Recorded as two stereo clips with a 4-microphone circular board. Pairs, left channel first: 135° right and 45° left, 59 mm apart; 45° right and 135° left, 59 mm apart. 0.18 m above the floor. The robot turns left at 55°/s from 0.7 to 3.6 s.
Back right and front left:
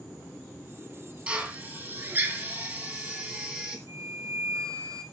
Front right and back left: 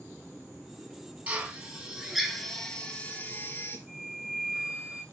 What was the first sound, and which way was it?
A drill, 95° left.